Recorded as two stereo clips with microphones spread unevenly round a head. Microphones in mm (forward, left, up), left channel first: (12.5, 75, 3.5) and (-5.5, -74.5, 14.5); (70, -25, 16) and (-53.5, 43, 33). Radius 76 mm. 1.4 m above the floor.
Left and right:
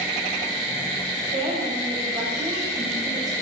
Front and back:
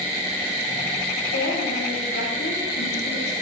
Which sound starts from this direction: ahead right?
A woman speaking, at 1.3 s.